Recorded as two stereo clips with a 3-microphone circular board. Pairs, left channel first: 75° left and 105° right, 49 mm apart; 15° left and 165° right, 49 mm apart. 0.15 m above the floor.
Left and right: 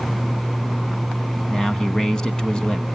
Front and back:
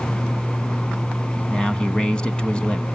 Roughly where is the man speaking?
Ahead left.